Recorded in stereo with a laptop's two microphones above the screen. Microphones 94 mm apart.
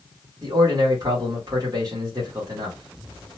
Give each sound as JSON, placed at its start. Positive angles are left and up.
{"t": 0.4, "sound": "a man speaking", "side_deg": -45, "distance_m": 1.6}